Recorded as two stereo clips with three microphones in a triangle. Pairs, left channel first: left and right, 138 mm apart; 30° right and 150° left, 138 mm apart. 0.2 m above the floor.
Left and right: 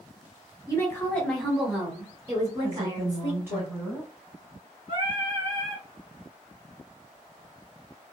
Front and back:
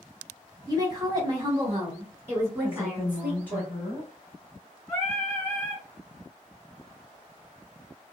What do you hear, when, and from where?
0.7 s a woman speaking: 130° left, 1.2 m; by 3.6 s 130° right, 1.9 m
2.6 s a woman speaking: 70° right, 1.0 m
4.9 s singing: 100° right, 1.8 m